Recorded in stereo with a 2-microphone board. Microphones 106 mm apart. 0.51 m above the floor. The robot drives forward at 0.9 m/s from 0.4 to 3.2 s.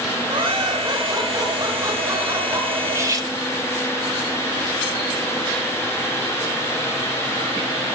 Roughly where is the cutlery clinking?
Right.